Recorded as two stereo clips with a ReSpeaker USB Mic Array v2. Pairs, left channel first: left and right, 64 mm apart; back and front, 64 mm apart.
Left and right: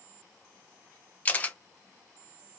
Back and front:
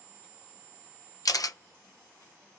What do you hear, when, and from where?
1.2 s a camera shutter: 155° left, 0.5 m